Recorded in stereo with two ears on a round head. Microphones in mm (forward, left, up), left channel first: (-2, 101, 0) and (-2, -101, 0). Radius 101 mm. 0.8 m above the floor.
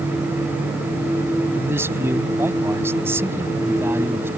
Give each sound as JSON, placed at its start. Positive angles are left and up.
{"t": 1.6, "sound": "a man speaking", "side_deg": -10}